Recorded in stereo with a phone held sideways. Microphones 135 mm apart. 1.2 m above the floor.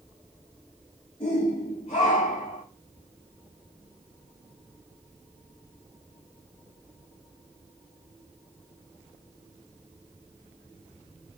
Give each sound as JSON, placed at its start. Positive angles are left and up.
{"t": 1.2, "sound": "a shout", "side_deg": 50, "distance_m": 5.0}